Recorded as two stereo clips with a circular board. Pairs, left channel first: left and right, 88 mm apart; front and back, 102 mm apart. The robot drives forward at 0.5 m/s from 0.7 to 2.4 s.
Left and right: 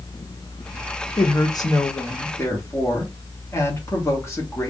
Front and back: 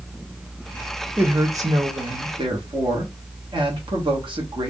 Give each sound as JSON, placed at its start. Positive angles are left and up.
{"t": 1.2, "sound": "a woman speaking", "azimuth_deg": 110, "distance_m": 0.7}